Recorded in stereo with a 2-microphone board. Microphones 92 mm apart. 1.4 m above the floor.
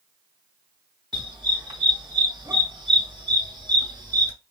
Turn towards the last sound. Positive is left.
turn(degrees=-45)  # may be behind; listen again after turning